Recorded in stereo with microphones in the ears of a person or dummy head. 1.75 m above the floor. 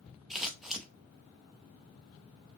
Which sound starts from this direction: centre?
Scissors, at 0.3 s.